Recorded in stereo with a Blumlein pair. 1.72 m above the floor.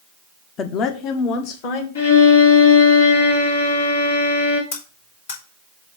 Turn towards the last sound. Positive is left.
turn(degrees=60)